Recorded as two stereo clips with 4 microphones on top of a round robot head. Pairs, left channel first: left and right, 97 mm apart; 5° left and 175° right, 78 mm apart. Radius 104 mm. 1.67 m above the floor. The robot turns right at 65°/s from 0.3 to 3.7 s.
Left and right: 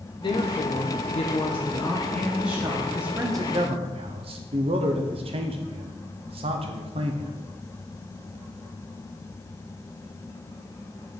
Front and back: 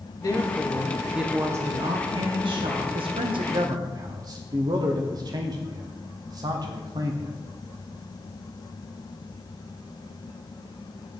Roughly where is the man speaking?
Behind.